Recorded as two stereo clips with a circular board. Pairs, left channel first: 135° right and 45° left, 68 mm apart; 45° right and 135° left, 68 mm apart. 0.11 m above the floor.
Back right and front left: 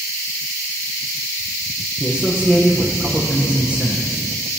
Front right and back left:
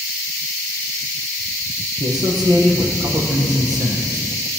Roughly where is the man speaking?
Behind left.